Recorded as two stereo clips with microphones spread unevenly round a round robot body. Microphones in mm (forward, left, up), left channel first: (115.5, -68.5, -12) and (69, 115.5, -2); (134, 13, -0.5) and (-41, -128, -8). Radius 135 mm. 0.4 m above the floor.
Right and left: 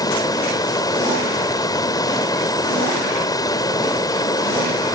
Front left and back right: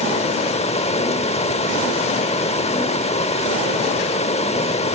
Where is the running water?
15° right, 1.1 m.